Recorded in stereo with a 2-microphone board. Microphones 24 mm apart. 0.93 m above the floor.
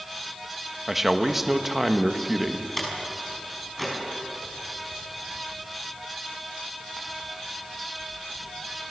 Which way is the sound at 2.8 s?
5° left (ahead or behind).